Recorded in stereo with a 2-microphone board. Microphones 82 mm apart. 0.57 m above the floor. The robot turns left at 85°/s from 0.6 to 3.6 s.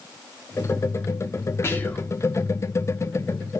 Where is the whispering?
50° left, 0.8 m; by 2.1 s 10° left, 0.8 m.